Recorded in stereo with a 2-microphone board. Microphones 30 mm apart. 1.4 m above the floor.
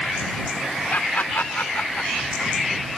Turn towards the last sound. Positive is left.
turn(degrees=65)  # may be behind; listen again after turning